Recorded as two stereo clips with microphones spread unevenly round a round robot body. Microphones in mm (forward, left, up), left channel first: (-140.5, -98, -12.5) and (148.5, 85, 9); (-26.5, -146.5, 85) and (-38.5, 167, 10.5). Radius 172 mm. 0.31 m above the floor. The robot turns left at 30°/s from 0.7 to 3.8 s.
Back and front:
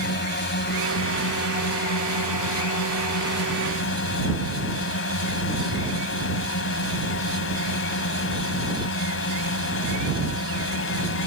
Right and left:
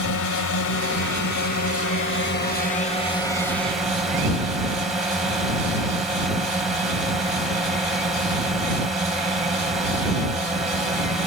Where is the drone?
100° right; by 11.3 s 170° left.